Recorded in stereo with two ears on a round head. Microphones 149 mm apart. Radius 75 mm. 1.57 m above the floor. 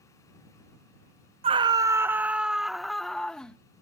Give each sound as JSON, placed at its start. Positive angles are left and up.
{"t": 1.4, "sound": "a scream", "side_deg": -35}